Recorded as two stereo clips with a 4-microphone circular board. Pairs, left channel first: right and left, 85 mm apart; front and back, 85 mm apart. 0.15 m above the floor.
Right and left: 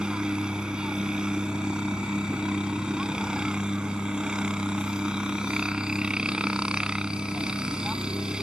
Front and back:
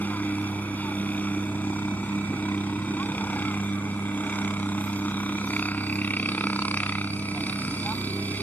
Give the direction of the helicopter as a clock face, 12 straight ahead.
11 o'clock.